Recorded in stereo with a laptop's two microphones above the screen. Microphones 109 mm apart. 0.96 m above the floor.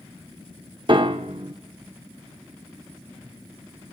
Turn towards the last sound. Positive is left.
turn(degrees=-50)  # may be behind; listen again after turning